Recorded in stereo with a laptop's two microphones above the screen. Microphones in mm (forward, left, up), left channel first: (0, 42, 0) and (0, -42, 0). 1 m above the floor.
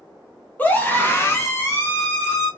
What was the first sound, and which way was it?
A scream, 20° left (ahead or behind).